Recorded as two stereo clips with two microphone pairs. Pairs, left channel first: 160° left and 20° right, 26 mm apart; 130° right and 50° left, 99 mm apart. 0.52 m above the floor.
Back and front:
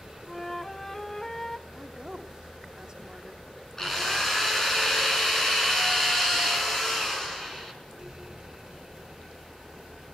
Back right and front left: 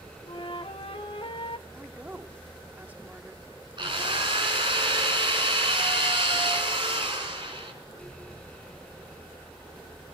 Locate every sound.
0.3 s a flute: 125° right, 0.6 m
1.7 s a woman speaking: 5° right, 1.2 m
3.8 s a drill: 85° left, 5.5 m